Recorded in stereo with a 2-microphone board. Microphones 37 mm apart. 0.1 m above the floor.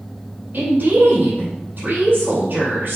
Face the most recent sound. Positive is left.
turn(degrees=-55)  # may be behind; listen again after turning